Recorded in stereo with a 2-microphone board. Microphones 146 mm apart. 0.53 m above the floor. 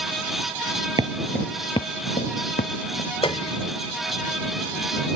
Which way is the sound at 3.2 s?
35° left (ahead or behind).